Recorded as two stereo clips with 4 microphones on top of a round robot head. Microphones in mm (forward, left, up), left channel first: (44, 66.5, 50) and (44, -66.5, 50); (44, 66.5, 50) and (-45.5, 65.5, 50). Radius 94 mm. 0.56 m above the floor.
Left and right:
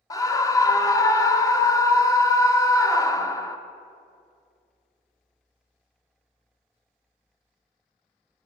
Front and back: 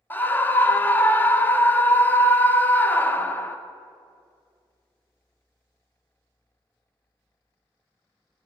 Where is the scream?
50° left, 0.7 m.